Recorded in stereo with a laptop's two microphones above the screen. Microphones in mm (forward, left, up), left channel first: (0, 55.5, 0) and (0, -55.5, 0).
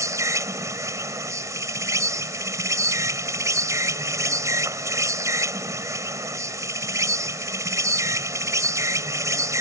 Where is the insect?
30° right (ahead or behind).